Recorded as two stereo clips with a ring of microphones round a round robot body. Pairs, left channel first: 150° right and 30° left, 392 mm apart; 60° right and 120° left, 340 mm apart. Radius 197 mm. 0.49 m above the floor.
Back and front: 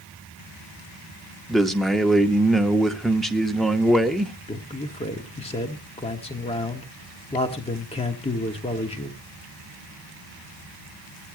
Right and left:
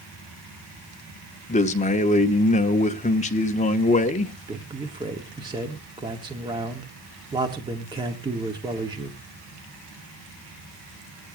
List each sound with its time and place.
1.5 s a man speaking: 60° right, 0.8 m
4.5 s a man speaking: 170° left, 1.1 m